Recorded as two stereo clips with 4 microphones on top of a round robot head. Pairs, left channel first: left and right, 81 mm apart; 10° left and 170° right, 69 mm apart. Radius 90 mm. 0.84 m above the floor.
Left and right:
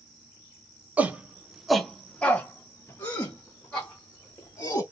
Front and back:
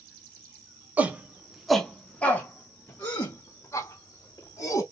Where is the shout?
135° right, 0.8 m; by 4.8 s 40° left, 1.8 m.